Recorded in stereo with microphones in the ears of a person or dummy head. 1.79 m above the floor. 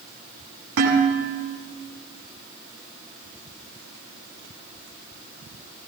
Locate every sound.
0.8 s dishes clattering: 85° right, 8.5 m